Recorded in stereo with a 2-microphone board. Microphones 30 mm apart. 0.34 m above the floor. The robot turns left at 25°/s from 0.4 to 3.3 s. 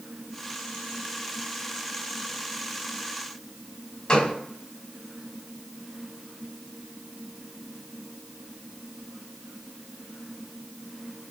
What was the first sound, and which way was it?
A gunshot, 25° left (ahead or behind).